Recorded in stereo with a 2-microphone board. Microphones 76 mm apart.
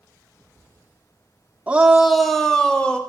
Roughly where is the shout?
Centre.